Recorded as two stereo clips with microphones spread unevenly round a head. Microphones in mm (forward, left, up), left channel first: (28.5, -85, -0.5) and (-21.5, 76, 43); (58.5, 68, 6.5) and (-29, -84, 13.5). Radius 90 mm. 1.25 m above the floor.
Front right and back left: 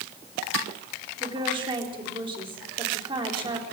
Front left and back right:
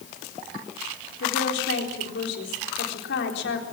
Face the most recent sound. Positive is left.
turn(degrees=45)